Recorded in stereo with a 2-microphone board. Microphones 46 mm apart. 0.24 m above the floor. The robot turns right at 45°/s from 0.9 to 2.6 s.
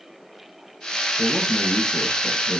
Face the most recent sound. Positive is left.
turn(degrees=70)